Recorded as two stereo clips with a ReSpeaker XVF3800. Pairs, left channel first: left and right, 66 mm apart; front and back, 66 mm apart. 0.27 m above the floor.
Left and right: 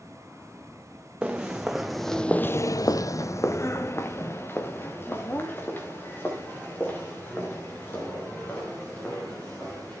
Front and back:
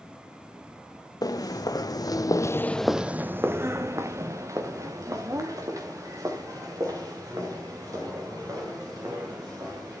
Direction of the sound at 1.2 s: 10° right.